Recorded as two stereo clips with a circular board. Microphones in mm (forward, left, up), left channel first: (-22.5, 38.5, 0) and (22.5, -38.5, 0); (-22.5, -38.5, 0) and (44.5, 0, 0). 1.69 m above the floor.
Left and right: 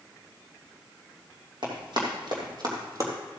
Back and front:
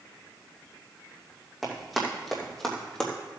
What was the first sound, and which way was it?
Running footsteps, 60° right.